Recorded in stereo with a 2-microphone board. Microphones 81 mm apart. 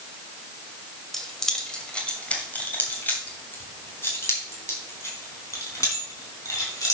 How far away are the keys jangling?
About 1.8 m.